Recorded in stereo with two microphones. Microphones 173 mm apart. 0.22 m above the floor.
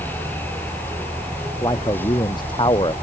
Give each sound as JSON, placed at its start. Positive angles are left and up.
{"t": 1.6, "sound": "a man speaking", "side_deg": 25}